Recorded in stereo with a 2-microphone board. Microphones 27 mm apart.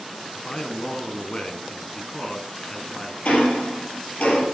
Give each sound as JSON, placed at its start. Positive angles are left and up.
{"t": 0.3, "sound": "a man speaking", "side_deg": 35, "distance_m": 1.3}
{"t": 3.2, "sound": "ticking", "side_deg": 65, "distance_m": 4.0}